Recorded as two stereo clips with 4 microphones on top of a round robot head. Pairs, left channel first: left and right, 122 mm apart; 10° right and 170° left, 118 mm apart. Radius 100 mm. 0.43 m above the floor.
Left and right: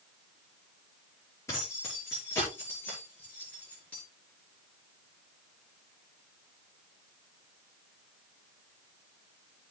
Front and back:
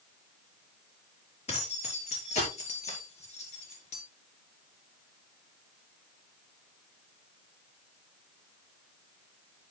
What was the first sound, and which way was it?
Keys jangling, 20° left.